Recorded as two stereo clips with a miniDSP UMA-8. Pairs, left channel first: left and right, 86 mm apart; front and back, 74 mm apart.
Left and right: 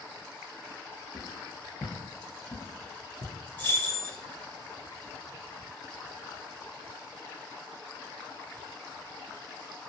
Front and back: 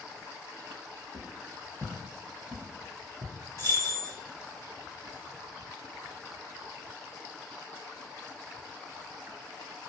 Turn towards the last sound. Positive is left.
turn(degrees=155)